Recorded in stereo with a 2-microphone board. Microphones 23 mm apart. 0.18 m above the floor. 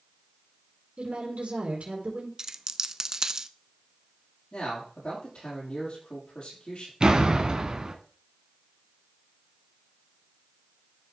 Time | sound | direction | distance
1.0 | a woman speaking | 65° right (ahead or behind) | 4 m
2.4 | a dropped coin | 25° right (ahead or behind) | 0.6 m
4.5 | a man speaking | 45° left (ahead or behind) | 6 m
7.0 | a door slam | 35° right (ahead or behind) | 1.2 m